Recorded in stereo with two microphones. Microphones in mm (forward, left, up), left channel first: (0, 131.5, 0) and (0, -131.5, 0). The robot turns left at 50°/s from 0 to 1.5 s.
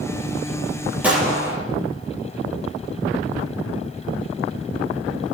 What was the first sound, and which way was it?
A gunshot, 5° right (ahead or behind).